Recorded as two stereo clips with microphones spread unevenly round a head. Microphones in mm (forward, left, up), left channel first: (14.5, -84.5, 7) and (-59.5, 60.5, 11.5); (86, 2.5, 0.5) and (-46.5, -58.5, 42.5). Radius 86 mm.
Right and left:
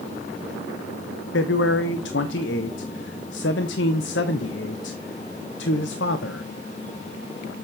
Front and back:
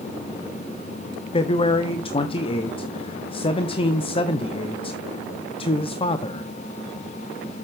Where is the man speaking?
35° right, 0.8 m.